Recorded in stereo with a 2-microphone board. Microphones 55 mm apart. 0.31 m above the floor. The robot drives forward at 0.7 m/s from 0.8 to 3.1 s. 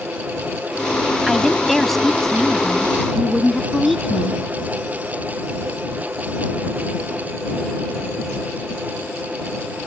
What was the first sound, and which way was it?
A woman speaking, 5° left (ahead or behind).